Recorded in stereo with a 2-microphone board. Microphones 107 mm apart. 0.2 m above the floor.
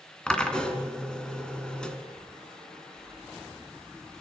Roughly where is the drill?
Centre.